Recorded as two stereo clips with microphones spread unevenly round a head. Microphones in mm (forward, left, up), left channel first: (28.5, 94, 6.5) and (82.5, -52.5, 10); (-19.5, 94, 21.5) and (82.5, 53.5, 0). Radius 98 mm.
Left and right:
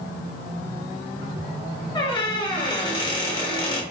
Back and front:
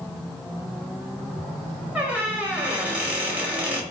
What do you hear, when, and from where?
1.9 s a squeak: 65° left, 1.0 m